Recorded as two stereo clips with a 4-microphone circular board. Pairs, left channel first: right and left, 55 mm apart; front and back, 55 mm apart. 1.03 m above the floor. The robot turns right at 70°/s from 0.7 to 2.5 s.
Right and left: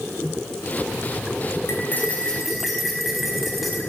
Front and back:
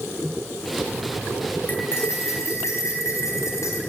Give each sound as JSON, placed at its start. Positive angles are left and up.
{"t": 1.7, "sound": "cutlery clinking", "azimuth_deg": -55, "distance_m": 4.0}